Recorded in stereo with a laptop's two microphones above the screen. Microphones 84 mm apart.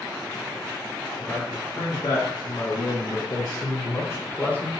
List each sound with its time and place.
1.2 s a man speaking: 55° left (ahead or behind), 1.7 m; by 4.7 s 15° left (ahead or behind), 1.0 m